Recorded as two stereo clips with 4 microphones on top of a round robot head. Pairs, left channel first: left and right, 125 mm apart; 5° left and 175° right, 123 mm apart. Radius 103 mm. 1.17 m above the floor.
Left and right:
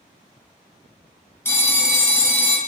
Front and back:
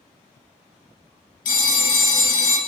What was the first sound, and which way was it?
A phone ringing, 20° left.